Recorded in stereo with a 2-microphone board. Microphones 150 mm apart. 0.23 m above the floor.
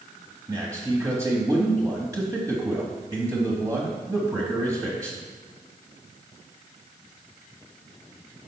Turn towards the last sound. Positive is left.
turn(degrees=-20)  # may be behind; listen again after turning